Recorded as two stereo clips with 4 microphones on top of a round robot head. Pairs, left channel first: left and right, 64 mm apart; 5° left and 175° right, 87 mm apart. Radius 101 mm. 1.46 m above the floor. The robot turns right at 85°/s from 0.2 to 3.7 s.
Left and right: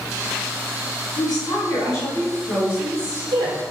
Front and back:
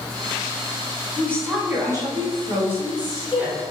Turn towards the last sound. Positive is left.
turn(degrees=-75)